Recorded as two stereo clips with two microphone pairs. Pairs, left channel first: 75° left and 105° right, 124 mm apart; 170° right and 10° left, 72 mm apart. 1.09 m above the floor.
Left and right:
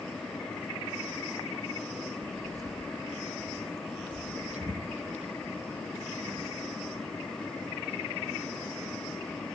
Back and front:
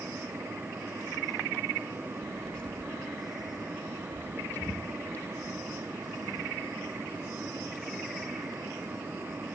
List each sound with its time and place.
2.2 s footsteps: 105° right, 1.1 m; by 9.5 s 110° right, 5.5 m